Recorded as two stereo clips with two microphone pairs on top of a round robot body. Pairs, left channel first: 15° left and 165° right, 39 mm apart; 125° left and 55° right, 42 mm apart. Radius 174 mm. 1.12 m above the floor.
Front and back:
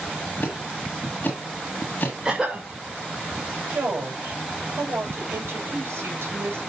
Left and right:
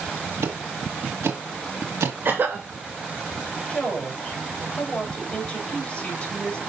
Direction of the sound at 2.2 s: 90° right.